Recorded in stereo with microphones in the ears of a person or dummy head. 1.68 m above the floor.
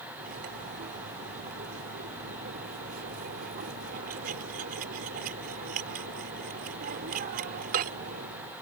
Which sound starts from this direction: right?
Cutlery clinking, at 0.2 s.